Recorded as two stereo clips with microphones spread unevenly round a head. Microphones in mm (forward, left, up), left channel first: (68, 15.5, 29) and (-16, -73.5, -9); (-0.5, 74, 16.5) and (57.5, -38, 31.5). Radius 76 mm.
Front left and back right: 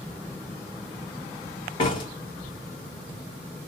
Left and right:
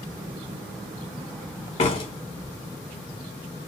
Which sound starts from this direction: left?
A door slam, at 1.8 s.